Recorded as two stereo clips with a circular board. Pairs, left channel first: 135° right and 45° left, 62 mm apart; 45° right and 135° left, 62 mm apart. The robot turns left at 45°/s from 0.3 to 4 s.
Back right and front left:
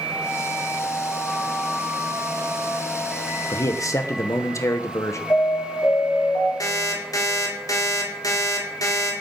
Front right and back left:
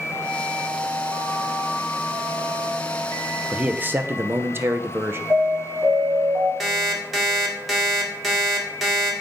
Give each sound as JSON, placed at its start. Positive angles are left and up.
{"t": 3.5, "sound": "a man speaking", "azimuth_deg": -150, "distance_m": 0.8}
{"t": 5.3, "sound": "an alarm", "azimuth_deg": -170, "distance_m": 3.0}
{"t": 6.6, "sound": "an alarm clock", "azimuth_deg": -140, "distance_m": 1.8}